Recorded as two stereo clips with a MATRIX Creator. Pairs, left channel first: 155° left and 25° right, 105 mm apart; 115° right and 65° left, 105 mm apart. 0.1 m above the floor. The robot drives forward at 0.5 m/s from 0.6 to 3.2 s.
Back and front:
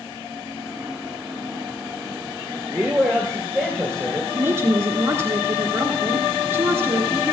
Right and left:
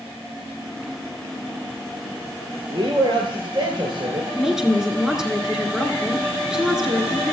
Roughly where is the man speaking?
Ahead left.